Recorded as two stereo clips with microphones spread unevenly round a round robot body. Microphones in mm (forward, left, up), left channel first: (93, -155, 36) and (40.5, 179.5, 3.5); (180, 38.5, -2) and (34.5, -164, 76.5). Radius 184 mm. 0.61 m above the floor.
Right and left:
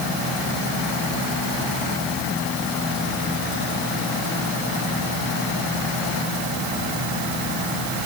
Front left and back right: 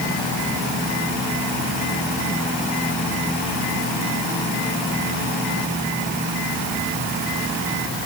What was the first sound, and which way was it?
Only background noise.